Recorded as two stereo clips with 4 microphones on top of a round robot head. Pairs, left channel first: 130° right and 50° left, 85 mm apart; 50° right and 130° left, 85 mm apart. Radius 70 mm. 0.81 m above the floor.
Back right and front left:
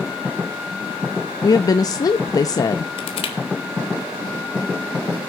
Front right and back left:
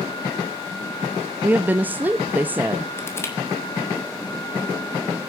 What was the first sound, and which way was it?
A woman speaking, 165° right.